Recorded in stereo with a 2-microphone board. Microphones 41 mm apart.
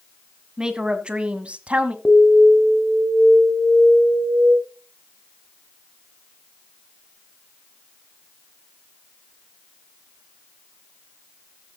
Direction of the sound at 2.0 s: 5° left (ahead or behind).